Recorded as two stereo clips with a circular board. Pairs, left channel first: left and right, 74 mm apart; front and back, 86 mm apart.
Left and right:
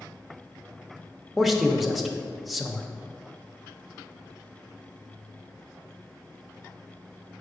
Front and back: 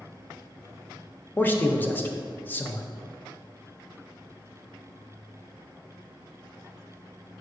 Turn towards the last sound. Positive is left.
turn(degrees=0)